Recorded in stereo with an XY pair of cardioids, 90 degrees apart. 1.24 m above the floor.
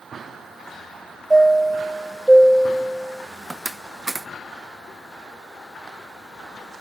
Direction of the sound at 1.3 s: 15° right.